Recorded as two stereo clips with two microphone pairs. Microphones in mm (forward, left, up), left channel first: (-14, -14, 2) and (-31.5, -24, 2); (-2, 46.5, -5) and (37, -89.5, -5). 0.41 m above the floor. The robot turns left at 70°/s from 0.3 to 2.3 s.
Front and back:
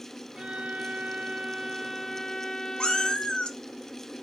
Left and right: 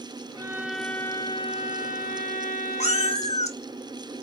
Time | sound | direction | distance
0.3 | a violin | 130° right | 0.8 m
2.8 | a cat meowing | 65° left | 0.8 m